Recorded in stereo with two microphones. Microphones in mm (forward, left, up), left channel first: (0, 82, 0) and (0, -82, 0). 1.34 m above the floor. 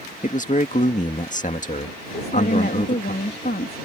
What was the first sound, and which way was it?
A man speaking, 50° left (ahead or behind).